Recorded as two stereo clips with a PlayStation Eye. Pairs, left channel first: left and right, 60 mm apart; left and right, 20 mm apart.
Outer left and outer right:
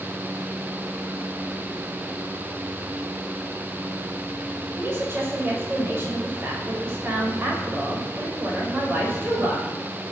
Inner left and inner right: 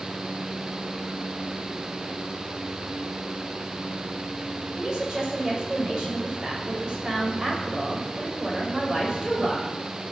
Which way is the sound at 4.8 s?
40° right (ahead or behind).